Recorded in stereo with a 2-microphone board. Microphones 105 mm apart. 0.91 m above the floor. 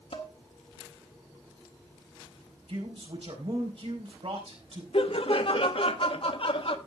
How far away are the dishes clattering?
About 1.8 m.